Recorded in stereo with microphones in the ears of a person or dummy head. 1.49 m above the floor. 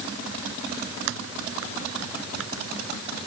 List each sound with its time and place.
1.1 s typing on a keyboard: 75° right (ahead or behind)